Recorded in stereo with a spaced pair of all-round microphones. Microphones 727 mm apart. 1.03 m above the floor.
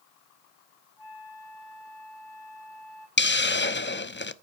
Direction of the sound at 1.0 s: 40° left (ahead or behind).